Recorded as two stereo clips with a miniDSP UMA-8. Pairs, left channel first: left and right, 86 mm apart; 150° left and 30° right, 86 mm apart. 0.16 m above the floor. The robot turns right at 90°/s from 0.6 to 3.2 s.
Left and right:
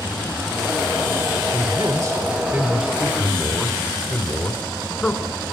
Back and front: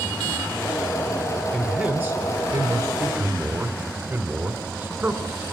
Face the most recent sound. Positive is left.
turn(degrees=20)